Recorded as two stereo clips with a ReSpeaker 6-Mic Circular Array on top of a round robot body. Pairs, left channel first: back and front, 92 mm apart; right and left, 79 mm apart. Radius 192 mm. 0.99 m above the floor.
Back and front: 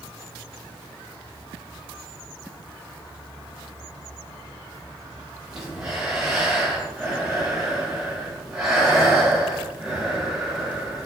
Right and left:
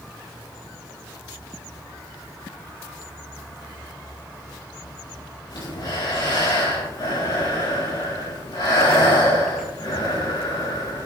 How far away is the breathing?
About 6.5 m.